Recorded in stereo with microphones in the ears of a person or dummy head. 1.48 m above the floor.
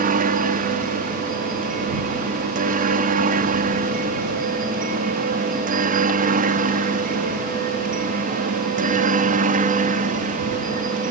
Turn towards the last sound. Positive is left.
turn(degrees=-40)  # may be behind; listen again after turning